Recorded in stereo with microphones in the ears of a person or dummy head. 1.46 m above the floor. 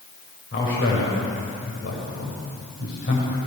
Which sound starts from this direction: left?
A man speaking, at 0.5 s.